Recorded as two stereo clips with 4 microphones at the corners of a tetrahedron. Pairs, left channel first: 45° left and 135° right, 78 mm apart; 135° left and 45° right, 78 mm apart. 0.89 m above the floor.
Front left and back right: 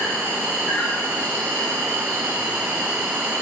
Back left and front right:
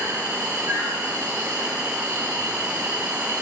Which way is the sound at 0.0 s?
25° right.